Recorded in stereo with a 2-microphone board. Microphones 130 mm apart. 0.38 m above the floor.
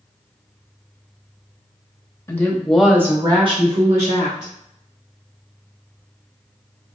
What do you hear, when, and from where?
2.3 s a woman speaking: 20° left (ahead or behind), 1.1 m; by 4.5 s 60° right (ahead or behind), 1.7 m